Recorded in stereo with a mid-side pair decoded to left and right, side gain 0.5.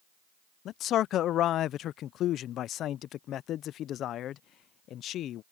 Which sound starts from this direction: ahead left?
A man speaking, at 0.7 s.